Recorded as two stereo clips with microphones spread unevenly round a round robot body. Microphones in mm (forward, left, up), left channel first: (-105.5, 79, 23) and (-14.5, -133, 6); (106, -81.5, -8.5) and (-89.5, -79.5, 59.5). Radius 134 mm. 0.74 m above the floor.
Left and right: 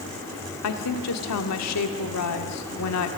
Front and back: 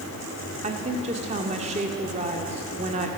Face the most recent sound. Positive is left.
turn(degrees=110)